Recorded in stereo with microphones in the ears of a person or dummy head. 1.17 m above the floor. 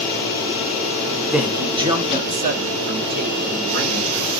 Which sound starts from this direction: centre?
A man speaking, at 1.3 s.